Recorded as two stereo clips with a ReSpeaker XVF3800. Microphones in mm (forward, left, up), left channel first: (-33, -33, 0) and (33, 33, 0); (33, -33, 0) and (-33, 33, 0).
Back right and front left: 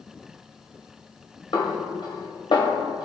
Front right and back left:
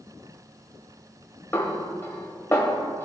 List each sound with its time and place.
1.5 s a snare drum: 105° right, 1.4 m